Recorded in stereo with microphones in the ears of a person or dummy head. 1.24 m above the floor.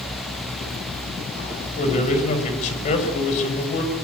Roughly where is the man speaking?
Left.